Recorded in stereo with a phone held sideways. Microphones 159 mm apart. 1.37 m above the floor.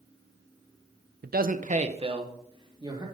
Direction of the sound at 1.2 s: 75° right (ahead or behind).